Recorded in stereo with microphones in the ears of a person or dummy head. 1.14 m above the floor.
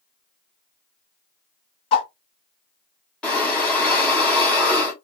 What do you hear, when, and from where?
1.9 s a whoosh: 30° left (ahead or behind), 0.8 m
3.2 s breathing: 5° left (ahead or behind), 0.8 m